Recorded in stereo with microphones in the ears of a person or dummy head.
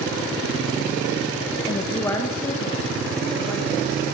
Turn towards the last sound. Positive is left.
turn(degrees=10)  # may be behind; listen again after turning